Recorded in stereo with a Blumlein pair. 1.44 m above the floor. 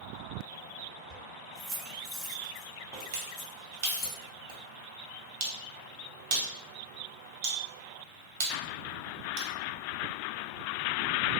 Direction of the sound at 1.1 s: 30° right.